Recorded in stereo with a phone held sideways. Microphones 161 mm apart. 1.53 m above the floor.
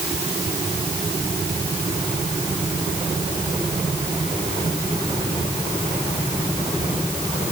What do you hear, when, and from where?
Only background noise.